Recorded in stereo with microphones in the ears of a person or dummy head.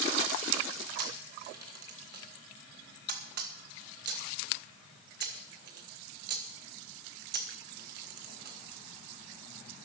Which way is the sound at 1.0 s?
55° right (ahead or behind).